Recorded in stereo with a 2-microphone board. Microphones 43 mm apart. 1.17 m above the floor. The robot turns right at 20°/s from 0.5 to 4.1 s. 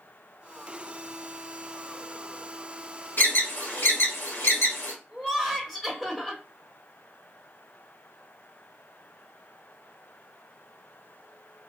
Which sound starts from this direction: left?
An alarm, at 3.2 s.